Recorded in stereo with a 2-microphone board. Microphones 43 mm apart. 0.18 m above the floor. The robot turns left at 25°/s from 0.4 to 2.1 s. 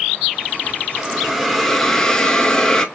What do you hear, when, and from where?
1.0 s a hiss: 10° right (ahead or behind), 0.6 m; by 2.9 s 15° left (ahead or behind), 0.6 m